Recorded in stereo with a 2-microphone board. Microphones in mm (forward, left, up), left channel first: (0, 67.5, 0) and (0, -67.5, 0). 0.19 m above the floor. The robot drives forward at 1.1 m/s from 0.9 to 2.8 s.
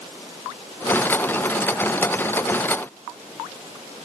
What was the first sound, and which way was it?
Only background noise.